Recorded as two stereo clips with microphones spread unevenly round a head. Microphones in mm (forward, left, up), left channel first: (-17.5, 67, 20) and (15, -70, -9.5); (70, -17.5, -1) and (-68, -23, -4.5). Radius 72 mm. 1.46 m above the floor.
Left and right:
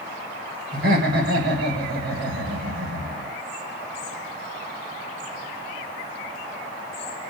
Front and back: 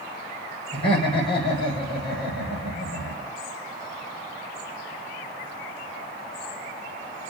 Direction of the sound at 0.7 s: 50° right.